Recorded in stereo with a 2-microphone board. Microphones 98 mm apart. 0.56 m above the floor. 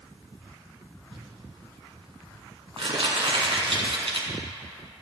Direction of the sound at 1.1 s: 75° right (ahead or behind).